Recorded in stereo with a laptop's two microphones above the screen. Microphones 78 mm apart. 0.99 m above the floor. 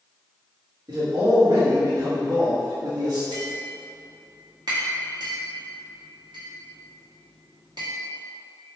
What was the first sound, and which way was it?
A man speaking, 50° right (ahead or behind).